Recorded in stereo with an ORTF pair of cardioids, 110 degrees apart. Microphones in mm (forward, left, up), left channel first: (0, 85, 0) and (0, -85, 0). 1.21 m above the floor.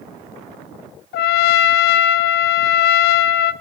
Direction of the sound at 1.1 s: 65° left.